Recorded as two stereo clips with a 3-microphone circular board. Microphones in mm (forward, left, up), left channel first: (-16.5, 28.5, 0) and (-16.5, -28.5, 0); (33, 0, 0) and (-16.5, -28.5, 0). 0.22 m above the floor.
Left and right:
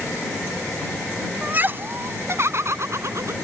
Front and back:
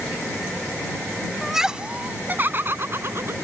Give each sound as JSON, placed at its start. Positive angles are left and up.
{"t": 1.4, "sound": "laughter", "azimuth_deg": -60}